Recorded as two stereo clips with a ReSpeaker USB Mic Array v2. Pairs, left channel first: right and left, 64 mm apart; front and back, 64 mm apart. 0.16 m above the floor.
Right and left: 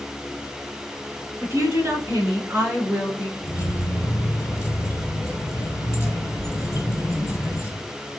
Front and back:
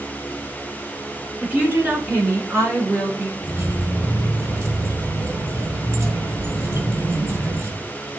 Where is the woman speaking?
120° left, 1.9 m; by 3.3 s 155° left, 2.5 m.